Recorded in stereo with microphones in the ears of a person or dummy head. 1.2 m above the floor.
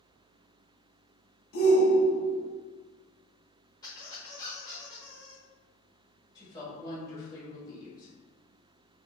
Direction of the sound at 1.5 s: 60° left (ahead or behind).